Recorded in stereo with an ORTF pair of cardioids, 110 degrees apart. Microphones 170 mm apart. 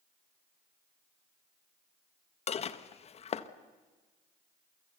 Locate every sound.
2.5 s dishes clattering: 40° left, 1.3 m